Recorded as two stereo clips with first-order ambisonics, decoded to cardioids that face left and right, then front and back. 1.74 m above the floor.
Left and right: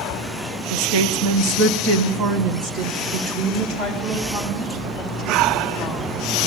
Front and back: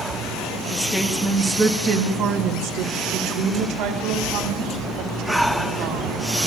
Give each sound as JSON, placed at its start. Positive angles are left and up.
{"t": 0.7, "sound": "a woman speaking", "azimuth_deg": -75, "distance_m": 1.7}